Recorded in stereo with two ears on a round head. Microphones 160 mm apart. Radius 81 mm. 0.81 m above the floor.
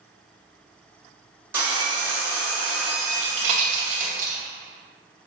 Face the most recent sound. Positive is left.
turn(degrees=-45)  # may be behind; listen again after turning